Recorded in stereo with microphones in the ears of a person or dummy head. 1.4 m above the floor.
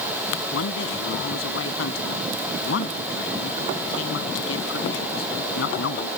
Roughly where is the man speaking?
Left.